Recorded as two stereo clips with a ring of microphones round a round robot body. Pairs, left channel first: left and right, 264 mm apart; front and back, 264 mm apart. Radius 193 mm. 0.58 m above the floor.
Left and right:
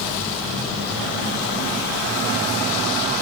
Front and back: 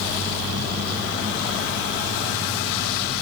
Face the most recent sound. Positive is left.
No sound to turn to.